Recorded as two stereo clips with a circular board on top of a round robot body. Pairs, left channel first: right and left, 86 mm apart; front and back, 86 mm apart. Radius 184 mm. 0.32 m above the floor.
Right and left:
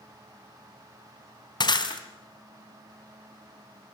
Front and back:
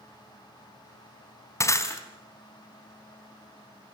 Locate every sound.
1.6 s breaking glass: 55° right, 3 m